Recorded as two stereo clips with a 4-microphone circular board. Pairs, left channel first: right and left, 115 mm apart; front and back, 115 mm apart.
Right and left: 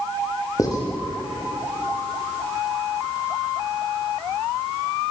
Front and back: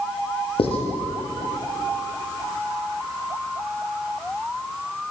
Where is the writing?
30° right, 6 m.